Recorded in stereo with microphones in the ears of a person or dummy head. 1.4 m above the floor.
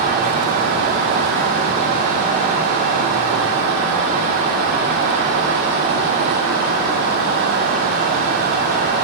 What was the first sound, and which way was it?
Only background noise.